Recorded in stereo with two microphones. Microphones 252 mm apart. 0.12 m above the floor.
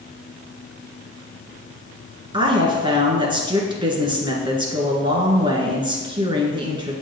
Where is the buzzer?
I don't hear a buzzer.